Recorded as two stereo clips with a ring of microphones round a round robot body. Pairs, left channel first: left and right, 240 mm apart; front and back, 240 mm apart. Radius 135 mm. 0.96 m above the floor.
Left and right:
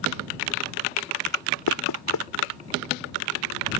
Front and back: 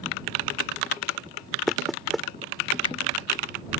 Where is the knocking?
90° left.